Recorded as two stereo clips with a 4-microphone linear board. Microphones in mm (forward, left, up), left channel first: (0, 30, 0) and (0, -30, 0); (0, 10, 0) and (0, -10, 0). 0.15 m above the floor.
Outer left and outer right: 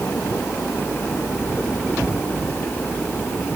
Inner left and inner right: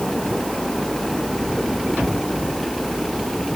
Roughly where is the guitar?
I don't hear a guitar.